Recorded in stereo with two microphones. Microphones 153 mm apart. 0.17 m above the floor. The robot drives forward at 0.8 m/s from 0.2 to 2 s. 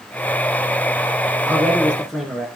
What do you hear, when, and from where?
1.5 s a man speaking: 5° left (ahead or behind), 1.6 m